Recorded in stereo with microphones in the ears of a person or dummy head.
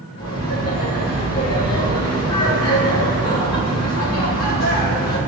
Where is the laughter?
85° left, 4 m.